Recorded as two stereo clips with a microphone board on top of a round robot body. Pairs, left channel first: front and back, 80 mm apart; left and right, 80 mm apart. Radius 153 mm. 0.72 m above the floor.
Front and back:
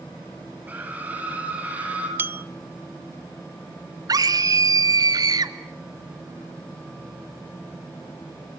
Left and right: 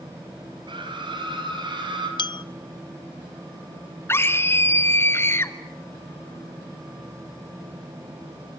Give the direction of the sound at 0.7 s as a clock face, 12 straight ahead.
4 o'clock.